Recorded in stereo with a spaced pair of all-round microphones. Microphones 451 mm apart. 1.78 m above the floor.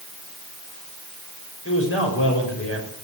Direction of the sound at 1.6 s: 30° left (ahead or behind).